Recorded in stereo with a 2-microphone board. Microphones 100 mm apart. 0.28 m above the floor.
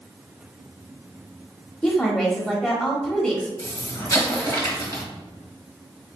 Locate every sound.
1.8 s a woman speaking: 10° left (ahead or behind), 1.0 m
3.6 s an explosion: 35° left (ahead or behind), 1.5 m